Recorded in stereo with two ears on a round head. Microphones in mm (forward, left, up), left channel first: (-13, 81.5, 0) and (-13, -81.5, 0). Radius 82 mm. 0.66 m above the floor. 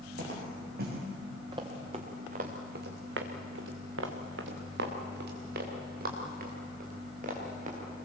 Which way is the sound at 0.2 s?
55° right (ahead or behind).